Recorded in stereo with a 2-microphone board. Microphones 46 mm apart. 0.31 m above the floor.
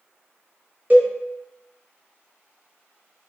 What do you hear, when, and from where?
0.9 s a cowbell: 35° right (ahead or behind), 1.0 m